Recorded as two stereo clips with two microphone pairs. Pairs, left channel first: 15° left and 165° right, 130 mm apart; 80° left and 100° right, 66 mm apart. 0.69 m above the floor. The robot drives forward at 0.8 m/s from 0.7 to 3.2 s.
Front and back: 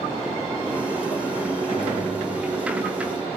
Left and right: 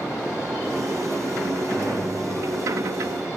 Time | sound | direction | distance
1.7 | a gunshot | 135° right | 3.5 m